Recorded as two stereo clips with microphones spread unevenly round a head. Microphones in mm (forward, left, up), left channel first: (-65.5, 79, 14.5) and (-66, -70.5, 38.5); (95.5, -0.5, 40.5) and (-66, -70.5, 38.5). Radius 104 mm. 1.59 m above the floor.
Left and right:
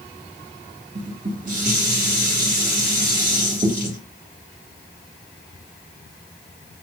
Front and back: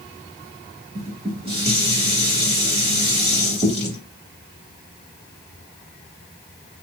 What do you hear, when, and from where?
0.9 s dishes clattering: 105° right, 1.6 m